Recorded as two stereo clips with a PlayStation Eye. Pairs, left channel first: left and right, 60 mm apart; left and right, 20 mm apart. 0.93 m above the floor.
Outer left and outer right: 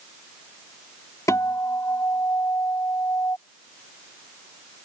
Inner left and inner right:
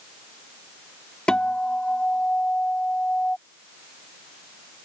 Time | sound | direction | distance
1.3 | a guitar | 65° left (ahead or behind) | ?